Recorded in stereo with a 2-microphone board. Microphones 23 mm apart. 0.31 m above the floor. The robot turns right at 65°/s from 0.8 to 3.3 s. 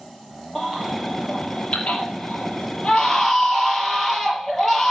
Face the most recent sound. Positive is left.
turn(degrees=165)